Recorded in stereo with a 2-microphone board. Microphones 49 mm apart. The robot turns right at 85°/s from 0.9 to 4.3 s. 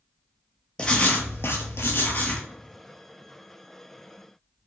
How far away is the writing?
About 0.6 m.